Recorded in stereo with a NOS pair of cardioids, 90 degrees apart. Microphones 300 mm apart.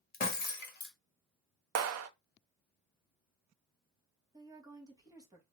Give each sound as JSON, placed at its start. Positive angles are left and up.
{"t": 0.1, "sound": "breaking glass", "azimuth_deg": 30, "distance_m": 1.4}
{"t": 1.8, "sound": "a clap", "azimuth_deg": -55, "distance_m": 0.6}
{"t": 4.3, "sound": "a woman speaking", "azimuth_deg": -10, "distance_m": 1.3}